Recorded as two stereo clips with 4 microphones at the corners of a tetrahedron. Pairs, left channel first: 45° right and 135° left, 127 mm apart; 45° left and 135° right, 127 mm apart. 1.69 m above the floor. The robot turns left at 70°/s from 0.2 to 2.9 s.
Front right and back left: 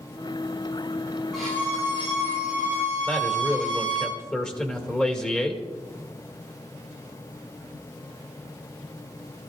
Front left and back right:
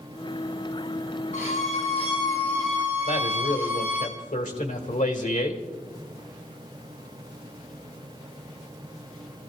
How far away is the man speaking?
About 2 m.